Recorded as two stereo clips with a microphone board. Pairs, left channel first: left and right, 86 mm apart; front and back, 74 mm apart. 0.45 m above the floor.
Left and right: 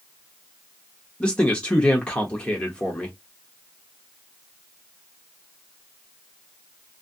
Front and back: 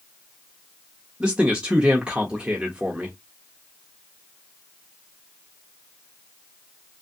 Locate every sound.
1.2 s a man speaking: 140° left, 0.7 m